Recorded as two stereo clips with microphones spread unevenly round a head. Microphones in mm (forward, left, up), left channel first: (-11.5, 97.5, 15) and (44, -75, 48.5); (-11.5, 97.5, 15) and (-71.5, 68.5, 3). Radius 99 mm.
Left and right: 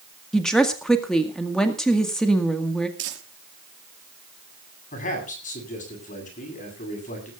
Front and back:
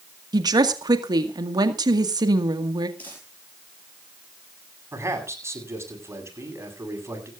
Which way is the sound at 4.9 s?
160° left.